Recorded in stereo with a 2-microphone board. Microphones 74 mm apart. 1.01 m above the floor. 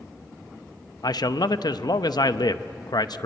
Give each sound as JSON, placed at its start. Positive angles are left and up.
{"t": 1.0, "sound": "a man speaking", "side_deg": 70, "distance_m": 0.8}